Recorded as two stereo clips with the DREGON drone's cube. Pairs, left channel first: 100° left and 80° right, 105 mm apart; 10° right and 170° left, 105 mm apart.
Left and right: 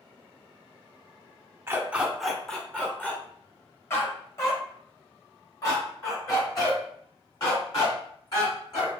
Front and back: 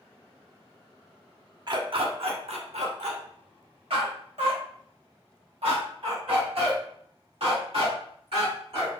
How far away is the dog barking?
About 0.6 m.